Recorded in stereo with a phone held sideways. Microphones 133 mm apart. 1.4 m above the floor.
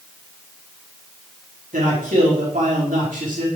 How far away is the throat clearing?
I don't hear throat clearing.